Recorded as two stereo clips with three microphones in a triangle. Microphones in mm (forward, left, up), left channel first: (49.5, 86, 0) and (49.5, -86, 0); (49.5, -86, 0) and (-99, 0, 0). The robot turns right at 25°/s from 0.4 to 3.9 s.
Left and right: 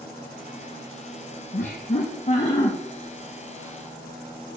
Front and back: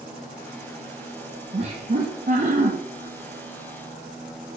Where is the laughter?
110° left, 0.9 m; by 2.7 s 140° left, 0.9 m.